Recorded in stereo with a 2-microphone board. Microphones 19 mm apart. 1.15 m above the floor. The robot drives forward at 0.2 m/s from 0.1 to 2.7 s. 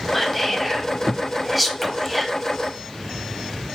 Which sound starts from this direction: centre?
Whispering, at 0.1 s.